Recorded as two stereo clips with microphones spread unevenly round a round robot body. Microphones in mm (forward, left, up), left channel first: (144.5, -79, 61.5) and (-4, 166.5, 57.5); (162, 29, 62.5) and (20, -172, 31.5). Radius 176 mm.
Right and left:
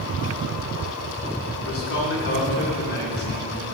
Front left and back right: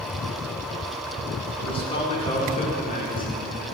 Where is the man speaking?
20° right, 2.5 m; by 3.8 s straight ahead, 3 m.